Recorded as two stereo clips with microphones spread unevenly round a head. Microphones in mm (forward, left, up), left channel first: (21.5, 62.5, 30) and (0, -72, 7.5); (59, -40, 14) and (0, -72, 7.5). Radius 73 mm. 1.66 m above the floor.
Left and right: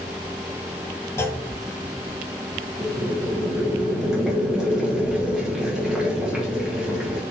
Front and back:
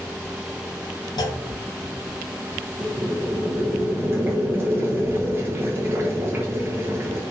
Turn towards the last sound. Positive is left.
turn(degrees=165)